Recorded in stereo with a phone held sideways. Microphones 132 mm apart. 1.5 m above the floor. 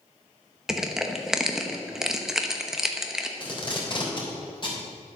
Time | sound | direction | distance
0.7 | crushing | 5° right (ahead or behind) | 1.1 m
3.4 | tape being pulled | 35° left (ahead or behind) | 3.5 m